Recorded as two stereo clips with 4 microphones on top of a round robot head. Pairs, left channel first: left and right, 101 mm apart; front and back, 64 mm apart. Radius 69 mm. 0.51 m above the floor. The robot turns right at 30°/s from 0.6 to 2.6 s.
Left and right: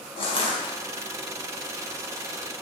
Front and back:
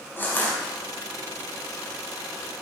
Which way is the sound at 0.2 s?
60° left.